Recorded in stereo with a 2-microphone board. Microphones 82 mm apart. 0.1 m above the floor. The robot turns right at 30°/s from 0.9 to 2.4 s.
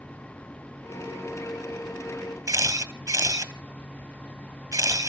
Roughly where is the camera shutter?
Right.